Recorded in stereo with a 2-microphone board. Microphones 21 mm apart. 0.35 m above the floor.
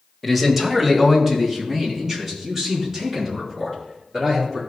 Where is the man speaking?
Centre (ahead or behind), 1.5 m; by 4.6 s 20° right (ahead or behind), 7 m.